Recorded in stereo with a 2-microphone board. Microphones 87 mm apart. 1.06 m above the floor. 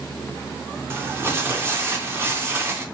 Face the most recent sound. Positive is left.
turn(degrees=-25)  # may be behind; listen again after turning